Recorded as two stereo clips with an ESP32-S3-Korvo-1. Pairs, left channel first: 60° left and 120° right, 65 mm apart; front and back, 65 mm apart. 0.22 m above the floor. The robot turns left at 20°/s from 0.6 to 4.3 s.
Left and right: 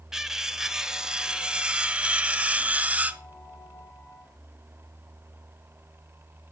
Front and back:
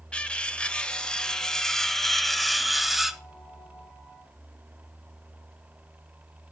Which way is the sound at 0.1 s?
50° right.